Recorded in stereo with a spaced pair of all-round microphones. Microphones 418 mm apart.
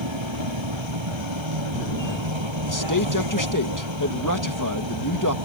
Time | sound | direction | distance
0.0 | a vehicle | 85° right | ?
2.7 | a man speaking | 45° left (ahead or behind) | ?